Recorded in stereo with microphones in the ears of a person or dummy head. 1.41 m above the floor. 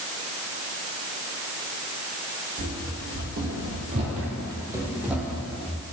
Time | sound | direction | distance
2.6 | running footsteps | 55° right (ahead or behind) | 2.5 m